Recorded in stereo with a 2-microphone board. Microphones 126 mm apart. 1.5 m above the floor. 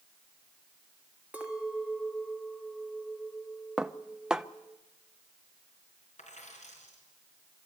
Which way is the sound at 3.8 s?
5° right (ahead or behind).